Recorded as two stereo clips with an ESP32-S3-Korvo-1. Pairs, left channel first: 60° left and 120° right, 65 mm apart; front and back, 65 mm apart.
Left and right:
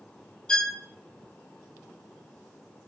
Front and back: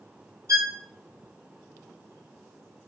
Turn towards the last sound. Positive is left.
turn(degrees=140)